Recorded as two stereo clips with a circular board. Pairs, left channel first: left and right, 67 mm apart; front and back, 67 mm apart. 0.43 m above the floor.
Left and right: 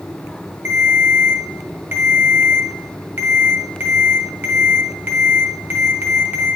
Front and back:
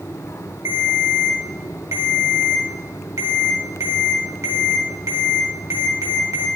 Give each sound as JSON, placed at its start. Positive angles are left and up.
{"t": 0.7, "sound": "a ringtone", "azimuth_deg": -145, "distance_m": 2.5}